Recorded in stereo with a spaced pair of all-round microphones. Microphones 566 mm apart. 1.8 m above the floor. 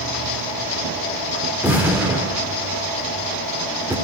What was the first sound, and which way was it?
An explosion, 5° right (ahead or behind).